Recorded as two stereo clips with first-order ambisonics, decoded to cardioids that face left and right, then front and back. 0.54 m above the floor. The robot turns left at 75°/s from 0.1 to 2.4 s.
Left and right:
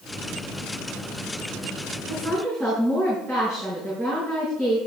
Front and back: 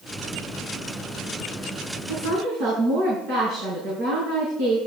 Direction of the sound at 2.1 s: 145° right.